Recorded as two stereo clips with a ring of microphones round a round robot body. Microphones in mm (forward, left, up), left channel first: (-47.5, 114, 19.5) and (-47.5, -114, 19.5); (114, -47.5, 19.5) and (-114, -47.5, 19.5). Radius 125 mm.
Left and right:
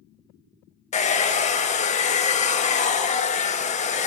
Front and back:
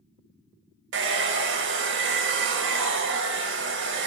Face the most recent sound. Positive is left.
turn(degrees=145)